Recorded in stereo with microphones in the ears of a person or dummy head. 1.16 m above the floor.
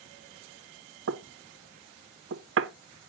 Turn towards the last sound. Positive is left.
turn(degrees=-60)  # may be behind; listen again after turning